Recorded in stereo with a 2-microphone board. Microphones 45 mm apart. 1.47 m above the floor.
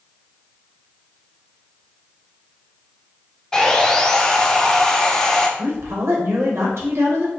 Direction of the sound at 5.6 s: 75° right (ahead or behind).